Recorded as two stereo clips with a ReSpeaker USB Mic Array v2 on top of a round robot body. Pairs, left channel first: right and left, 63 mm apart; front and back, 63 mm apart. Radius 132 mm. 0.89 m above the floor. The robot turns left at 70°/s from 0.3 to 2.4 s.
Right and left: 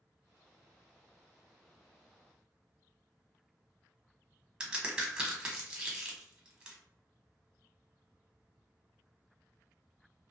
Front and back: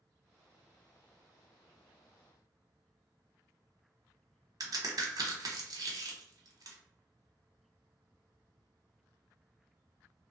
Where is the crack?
165° left, 1.0 m.